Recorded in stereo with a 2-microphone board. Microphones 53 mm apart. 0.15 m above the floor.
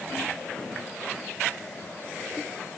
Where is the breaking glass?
No breaking glass in this recording.